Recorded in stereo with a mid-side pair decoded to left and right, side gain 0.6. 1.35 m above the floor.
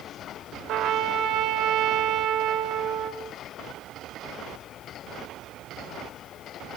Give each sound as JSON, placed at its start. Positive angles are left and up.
{"t": 0.7, "sound": "a trumpet", "azimuth_deg": -55, "distance_m": 5.5}